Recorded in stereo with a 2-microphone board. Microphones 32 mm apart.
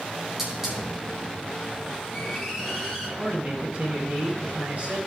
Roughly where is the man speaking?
Right.